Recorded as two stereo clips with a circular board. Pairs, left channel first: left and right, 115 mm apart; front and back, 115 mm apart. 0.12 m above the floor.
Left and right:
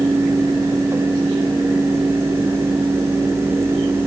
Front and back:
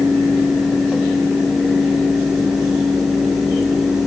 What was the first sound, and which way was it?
Only background noise.